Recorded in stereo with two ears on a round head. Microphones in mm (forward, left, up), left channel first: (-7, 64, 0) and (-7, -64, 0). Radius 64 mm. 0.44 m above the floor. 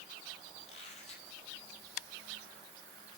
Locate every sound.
0.6 s a squeak: 50° left (ahead or behind), 3.5 m